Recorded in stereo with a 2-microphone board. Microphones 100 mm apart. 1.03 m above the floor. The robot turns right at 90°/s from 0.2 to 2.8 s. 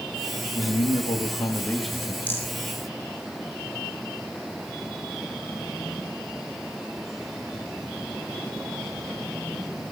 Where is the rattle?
15° left (ahead or behind), 8 m; by 2.5 s 30° left (ahead or behind), 8 m.